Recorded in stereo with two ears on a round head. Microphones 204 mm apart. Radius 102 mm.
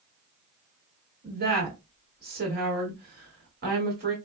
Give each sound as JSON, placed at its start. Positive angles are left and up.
{"t": 1.2, "sound": "a woman speaking", "side_deg": -40, "distance_m": 1.6}